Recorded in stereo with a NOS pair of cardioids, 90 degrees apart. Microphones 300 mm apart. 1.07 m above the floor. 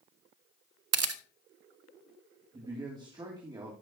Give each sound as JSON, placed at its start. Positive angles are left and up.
{"t": 0.9, "sound": "a camera shutter", "azimuth_deg": -55, "distance_m": 0.7}
{"t": 2.5, "sound": "a man speaking", "azimuth_deg": -15, "distance_m": 2.5}